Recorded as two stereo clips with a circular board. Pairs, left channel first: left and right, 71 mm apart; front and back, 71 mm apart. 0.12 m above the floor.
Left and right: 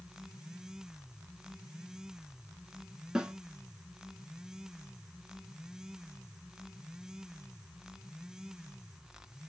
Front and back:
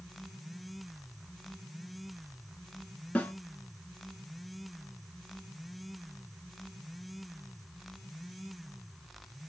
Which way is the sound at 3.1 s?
25° right.